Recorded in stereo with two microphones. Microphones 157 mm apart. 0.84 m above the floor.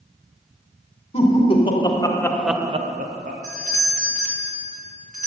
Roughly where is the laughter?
Left.